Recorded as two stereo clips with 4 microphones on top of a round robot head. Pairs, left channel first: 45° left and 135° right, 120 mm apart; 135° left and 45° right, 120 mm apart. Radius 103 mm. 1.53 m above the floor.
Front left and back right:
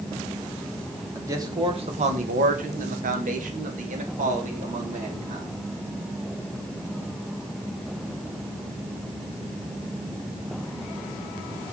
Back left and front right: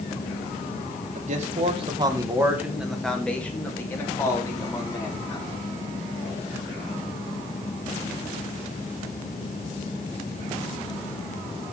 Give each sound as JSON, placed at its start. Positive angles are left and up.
{"t": 1.1, "sound": "a man speaking", "azimuth_deg": -65, "distance_m": 1.8}